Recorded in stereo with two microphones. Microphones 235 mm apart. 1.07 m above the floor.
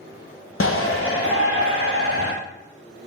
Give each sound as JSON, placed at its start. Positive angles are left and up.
{"t": 0.6, "sound": "a shout", "side_deg": 60, "distance_m": 0.8}